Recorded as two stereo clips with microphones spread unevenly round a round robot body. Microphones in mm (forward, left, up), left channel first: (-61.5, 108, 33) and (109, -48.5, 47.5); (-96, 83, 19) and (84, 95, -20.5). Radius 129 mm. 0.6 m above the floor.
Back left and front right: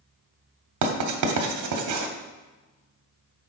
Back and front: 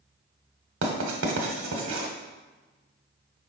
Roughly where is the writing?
Ahead right.